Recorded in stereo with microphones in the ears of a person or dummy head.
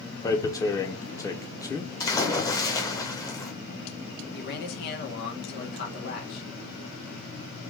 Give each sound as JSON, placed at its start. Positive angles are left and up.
{"t": 0.2, "sound": "tearing paper", "side_deg": 15, "distance_m": 0.5}
{"t": 2.0, "sound": "a splash", "side_deg": 20, "distance_m": 0.7}
{"t": 4.3, "sound": "a man speaking", "side_deg": 55, "distance_m": 1.3}